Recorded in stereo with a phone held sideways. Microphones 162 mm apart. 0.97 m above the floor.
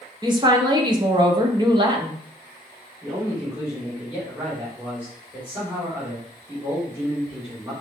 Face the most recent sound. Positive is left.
turn(degrees=-10)  # may be behind; listen again after turning